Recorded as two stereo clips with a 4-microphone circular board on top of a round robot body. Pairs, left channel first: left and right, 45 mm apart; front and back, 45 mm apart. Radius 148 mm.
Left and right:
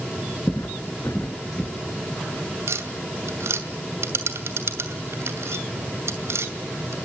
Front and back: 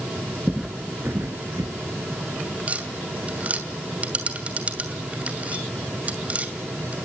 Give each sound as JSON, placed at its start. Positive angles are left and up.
{"t": 0.5, "sound": "footsteps", "azimuth_deg": 75, "distance_m": 0.6}
{"t": 2.7, "sound": "tapping", "azimuth_deg": -120, "distance_m": 2.5}